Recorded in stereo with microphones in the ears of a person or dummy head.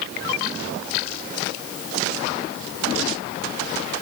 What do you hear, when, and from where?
Only background noise.